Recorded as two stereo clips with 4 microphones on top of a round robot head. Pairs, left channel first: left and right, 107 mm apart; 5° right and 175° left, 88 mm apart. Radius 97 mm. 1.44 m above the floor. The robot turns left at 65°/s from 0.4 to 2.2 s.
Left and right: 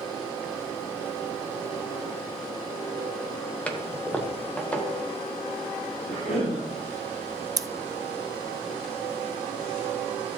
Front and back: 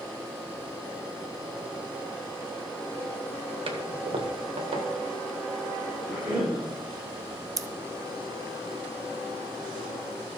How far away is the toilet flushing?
About 1.4 m.